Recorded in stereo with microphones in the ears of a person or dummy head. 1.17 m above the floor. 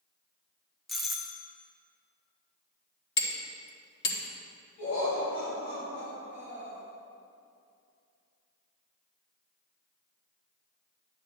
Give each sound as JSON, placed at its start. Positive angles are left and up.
{"t": 0.9, "sound": "a doorbell", "side_deg": 0, "distance_m": 0.5}
{"t": 3.2, "sound": "hammering", "side_deg": 65, "distance_m": 1.4}
{"t": 4.8, "sound": "laughter", "side_deg": 45, "distance_m": 2.5}